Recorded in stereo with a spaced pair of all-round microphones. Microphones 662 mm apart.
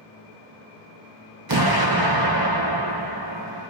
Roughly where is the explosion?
Right.